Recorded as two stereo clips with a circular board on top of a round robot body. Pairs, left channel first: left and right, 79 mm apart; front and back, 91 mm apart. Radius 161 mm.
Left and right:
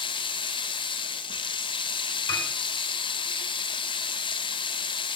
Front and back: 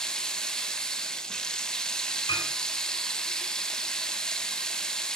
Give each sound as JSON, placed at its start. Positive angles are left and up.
{"t": 0.0, "sound": "running water", "azimuth_deg": 85, "distance_m": 0.7}
{"t": 2.3, "sound": "a piano", "azimuth_deg": 45, "distance_m": 4.5}